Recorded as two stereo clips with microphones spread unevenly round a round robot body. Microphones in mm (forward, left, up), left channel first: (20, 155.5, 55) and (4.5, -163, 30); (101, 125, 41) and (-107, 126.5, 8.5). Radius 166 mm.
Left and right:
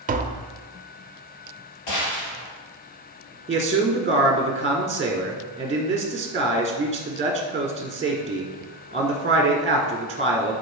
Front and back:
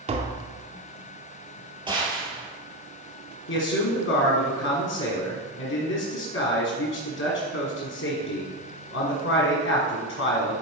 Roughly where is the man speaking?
Ahead right.